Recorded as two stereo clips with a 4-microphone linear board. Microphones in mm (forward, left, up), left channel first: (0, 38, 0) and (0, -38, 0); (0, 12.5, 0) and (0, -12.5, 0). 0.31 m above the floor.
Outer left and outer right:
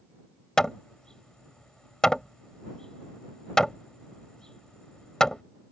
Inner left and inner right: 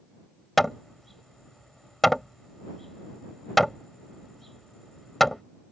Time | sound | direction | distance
0.6 | hammering | 10° left (ahead or behind) | ?